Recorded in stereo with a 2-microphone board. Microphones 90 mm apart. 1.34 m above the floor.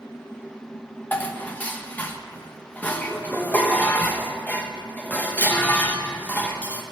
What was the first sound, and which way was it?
Dishes clattering, 20° left (ahead or behind).